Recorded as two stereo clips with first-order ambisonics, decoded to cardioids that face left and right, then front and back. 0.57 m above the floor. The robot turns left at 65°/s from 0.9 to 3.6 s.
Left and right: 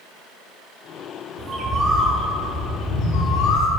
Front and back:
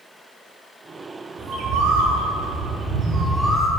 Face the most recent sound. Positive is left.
turn(degrees=80)